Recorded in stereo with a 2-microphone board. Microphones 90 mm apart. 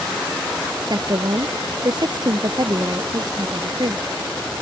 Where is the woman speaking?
50° right (ahead or behind).